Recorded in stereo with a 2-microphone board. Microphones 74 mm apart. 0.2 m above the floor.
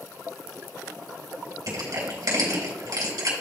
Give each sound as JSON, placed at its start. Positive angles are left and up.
{"t": 1.7, "sound": "crushing", "side_deg": -60, "distance_m": 3.0}